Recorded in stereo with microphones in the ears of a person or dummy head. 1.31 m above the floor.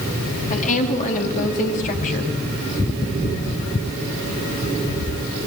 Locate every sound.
0.5 s a woman speaking: 40° left (ahead or behind), 2.5 m